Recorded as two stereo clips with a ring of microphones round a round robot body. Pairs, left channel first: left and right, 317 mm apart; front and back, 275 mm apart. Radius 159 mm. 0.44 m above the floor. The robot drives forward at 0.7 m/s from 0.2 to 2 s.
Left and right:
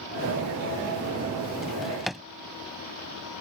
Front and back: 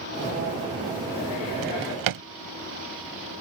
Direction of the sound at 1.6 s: Straight behind.